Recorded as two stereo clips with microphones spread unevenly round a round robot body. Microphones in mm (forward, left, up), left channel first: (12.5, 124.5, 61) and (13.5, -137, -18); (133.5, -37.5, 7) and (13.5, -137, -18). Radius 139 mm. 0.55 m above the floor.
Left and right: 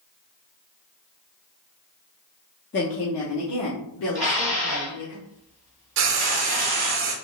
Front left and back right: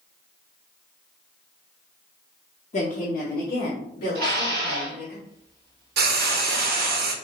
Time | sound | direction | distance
2.7 | a woman speaking | 45° left | 0.7 m
4.2 | dishes clattering | 170° right | 1.8 m
6.0 | frying | 130° right | 0.6 m